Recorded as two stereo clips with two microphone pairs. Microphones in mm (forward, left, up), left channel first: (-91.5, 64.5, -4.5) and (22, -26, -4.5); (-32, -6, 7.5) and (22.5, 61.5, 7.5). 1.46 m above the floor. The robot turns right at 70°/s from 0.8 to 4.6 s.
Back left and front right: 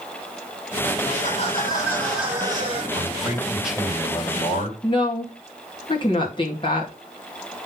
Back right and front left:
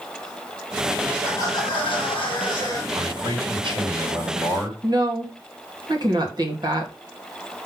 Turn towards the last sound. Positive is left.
turn(degrees=85)